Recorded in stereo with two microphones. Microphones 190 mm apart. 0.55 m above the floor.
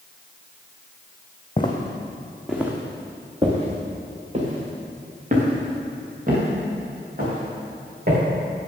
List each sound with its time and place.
1.6 s footsteps: 25° left (ahead or behind), 1.8 m; by 8.2 s 50° right (ahead or behind), 7.5 m